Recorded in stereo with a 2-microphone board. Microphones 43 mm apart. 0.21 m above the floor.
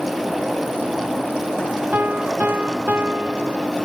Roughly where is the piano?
Right.